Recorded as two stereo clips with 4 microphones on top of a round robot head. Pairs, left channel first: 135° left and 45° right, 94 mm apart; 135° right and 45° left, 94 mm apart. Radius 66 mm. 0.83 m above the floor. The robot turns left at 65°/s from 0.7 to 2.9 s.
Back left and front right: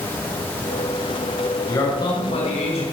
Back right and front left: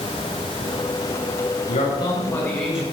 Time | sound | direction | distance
1.7 | a man speaking | 155° right | 5 m